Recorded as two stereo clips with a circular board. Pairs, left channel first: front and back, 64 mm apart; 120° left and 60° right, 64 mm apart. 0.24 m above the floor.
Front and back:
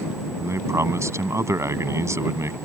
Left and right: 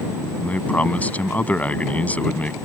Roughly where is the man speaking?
Behind.